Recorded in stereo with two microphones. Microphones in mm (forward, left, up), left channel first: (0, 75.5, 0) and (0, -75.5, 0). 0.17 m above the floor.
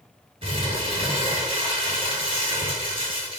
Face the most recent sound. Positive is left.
turn(degrees=-35)  # may be behind; listen again after turning